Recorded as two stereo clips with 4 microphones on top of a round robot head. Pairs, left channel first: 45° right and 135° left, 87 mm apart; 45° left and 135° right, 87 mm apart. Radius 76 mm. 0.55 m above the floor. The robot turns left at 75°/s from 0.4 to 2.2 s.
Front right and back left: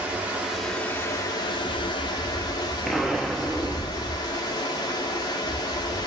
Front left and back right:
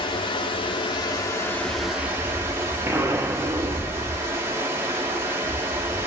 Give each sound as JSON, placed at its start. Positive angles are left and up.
{"t": 0.0, "sound": "running water", "azimuth_deg": 60, "distance_m": 0.9}
{"t": 2.9, "sound": "an explosion", "azimuth_deg": -135, "distance_m": 0.7}